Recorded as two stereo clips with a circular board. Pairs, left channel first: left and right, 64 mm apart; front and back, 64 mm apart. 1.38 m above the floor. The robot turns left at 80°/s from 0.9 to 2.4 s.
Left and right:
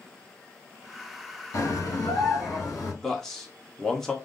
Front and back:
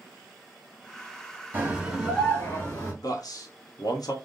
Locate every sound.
1.5 s a scream: 125° left, 2.5 m; by 2.9 s 55° left, 2.5 m
3.0 s a man speaking: 5° left, 1.0 m